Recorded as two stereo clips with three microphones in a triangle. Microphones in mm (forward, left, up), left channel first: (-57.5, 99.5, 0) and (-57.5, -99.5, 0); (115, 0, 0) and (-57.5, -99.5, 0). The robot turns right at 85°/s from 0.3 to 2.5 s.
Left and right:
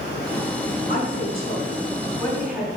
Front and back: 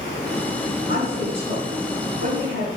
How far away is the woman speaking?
About 4 m.